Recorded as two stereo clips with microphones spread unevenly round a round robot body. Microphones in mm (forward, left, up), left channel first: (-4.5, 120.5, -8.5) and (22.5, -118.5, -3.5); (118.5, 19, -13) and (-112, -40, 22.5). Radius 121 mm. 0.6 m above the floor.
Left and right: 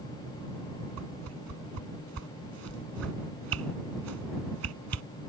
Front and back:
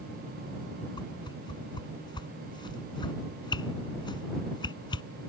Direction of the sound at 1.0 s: 60° right.